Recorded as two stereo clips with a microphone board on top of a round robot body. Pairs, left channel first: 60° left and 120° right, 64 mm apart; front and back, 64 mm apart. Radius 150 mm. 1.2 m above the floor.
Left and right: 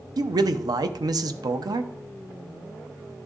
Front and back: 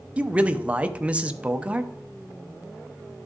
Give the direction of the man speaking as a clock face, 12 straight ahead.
4 o'clock.